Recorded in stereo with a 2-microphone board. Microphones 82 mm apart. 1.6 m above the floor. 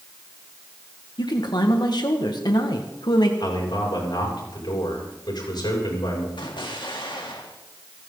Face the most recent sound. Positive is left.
turn(degrees=85)